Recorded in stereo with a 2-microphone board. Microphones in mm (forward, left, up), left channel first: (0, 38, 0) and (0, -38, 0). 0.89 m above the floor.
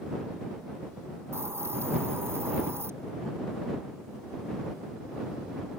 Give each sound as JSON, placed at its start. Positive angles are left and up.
{"t": 1.3, "sound": "a hiss", "side_deg": -35}